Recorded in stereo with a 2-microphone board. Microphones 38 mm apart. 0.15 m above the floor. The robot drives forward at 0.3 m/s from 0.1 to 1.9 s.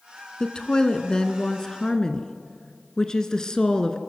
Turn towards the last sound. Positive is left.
turn(degrees=20)  # may be behind; listen again after turning